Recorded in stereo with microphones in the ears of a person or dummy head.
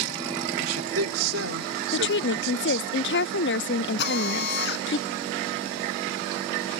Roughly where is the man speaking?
Right.